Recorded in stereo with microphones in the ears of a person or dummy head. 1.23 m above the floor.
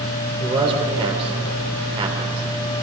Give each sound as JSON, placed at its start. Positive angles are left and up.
{"t": 0.4, "sound": "a man speaking", "side_deg": -25, "distance_m": 3.5}